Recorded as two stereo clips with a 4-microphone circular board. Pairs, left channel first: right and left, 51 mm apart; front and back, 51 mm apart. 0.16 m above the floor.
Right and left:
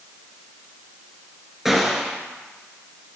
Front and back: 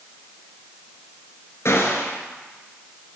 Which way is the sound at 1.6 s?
10° left.